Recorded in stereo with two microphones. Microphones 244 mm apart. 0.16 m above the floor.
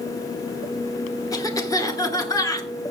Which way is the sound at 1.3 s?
15° left (ahead or behind).